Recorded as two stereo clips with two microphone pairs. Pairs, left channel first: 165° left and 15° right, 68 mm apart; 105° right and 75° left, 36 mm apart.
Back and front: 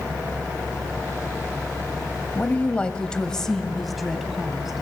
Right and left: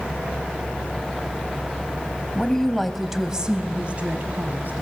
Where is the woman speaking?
155° right, 1.7 m; by 4.8 s 65° left, 2.5 m.